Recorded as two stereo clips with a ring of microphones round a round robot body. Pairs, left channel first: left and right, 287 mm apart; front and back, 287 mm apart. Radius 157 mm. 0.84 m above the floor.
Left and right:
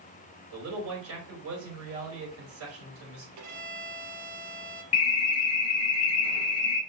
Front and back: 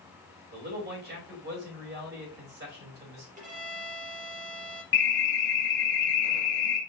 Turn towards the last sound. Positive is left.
turn(degrees=50)